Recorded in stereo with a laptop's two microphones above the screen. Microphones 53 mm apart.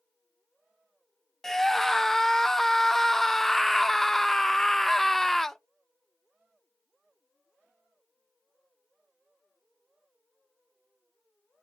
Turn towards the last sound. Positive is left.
turn(degrees=10)  # may be behind; listen again after turning